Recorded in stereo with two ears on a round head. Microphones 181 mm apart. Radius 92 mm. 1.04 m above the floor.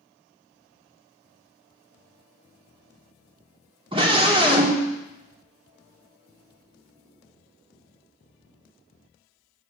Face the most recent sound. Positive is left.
turn(degrees=-25)  # may be behind; listen again after turning